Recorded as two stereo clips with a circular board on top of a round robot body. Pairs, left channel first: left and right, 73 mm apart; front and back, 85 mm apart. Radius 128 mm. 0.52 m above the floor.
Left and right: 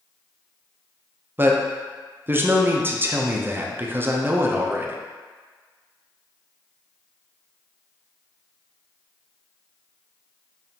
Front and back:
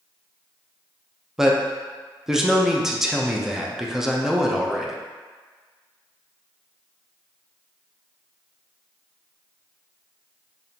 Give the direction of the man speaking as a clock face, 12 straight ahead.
3 o'clock.